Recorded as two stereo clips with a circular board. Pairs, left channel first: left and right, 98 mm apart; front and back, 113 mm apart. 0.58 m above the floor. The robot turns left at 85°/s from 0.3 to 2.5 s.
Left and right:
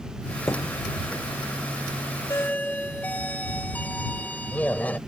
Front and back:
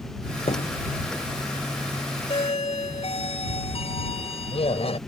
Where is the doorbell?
35° left; by 5.0 s 15° left.